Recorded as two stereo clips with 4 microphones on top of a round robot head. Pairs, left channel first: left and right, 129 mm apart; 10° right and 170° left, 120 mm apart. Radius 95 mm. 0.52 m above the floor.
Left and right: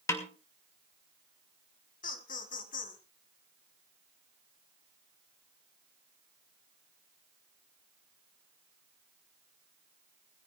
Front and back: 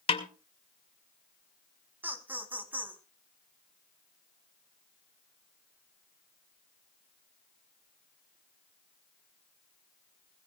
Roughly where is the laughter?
Left.